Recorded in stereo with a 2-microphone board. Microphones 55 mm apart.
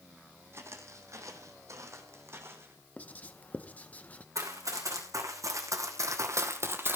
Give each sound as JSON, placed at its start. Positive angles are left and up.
{"t": 0.5, "sound": "footsteps", "side_deg": -50, "distance_m": 2.5}
{"t": 3.0, "sound": "writing", "side_deg": 25, "distance_m": 0.9}
{"t": 4.3, "sound": "running footsteps", "side_deg": -70, "distance_m": 4.0}